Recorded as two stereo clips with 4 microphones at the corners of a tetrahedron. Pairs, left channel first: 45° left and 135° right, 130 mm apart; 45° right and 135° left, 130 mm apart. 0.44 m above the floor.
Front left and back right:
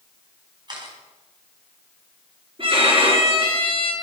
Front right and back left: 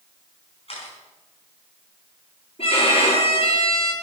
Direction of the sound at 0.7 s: 80° right.